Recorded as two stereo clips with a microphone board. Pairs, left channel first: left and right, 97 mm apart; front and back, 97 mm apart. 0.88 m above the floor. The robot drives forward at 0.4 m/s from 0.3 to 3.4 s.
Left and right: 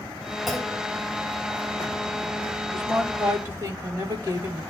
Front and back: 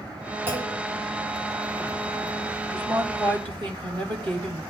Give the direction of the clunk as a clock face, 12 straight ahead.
6 o'clock.